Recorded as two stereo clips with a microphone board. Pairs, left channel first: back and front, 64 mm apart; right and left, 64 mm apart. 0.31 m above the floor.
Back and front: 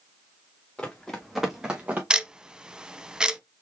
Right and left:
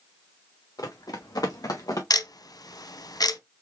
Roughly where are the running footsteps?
Right.